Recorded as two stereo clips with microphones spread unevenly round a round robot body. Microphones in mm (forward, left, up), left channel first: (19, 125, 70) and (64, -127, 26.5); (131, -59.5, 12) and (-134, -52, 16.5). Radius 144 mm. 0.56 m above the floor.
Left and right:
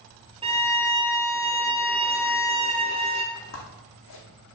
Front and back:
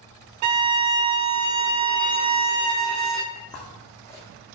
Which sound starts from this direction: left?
Footsteps, at 3.4 s.